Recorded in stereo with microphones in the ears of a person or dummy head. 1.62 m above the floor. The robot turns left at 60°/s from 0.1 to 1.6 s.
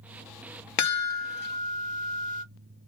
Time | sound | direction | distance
0.8 | a chime | 90° left | 0.8 m